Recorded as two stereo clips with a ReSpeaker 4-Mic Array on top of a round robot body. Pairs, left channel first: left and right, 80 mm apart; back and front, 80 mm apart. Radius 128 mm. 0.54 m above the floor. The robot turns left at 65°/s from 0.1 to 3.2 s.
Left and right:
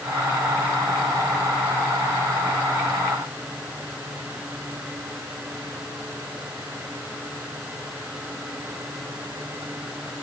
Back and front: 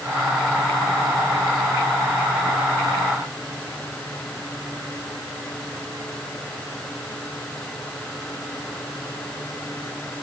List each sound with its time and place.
Only background noise.